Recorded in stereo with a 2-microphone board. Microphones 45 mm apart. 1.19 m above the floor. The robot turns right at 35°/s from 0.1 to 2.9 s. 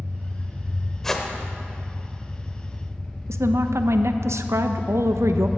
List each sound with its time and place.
0.0 s an engine running: 80° right, 1.2 m; by 5.6 s 20° left, 1.2 m
1.0 s a whoosh: 5° left (ahead or behind), 1.0 m; by 1.3 s 10° left (ahead or behind), 1.0 m
3.3 s a woman speaking: 85° right, 0.6 m